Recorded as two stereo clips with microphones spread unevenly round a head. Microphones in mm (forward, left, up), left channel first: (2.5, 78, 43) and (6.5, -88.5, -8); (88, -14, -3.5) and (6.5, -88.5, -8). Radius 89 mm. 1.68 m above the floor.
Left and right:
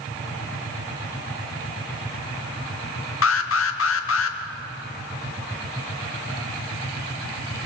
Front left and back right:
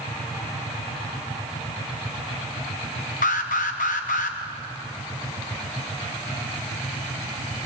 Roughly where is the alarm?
Left.